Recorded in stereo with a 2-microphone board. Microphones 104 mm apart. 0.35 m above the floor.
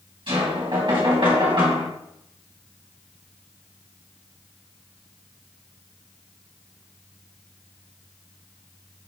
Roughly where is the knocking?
Right.